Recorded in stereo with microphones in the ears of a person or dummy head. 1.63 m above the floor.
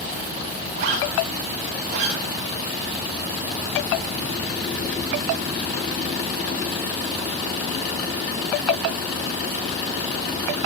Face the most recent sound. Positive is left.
turn(degrees=-50)  # may be behind; listen again after turning